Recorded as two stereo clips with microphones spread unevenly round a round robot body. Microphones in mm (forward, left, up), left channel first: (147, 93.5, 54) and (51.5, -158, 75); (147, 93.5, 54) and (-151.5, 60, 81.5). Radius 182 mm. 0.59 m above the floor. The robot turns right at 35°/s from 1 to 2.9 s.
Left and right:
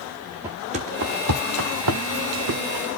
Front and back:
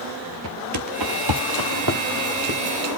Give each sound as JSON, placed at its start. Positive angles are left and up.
{"t": 0.4, "sound": "footsteps", "azimuth_deg": 175, "distance_m": 0.7}